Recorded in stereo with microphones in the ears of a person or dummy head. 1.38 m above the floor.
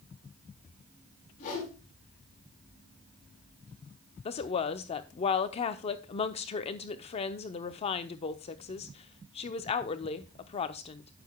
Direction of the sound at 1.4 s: 45° left (ahead or behind).